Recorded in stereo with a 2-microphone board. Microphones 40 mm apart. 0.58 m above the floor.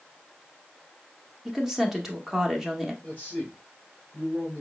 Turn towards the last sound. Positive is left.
turn(degrees=35)  # may be behind; listen again after turning